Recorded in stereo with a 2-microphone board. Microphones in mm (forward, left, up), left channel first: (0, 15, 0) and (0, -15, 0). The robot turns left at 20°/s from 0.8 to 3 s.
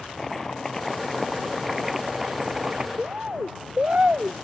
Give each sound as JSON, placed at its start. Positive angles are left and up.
{"t": 0.2, "sound": "chopping", "azimuth_deg": 15}
{"t": 3.0, "sound": "a bird", "side_deg": -45}